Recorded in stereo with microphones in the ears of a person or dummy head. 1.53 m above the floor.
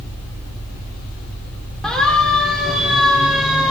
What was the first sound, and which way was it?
A siren, 5° left (ahead or behind).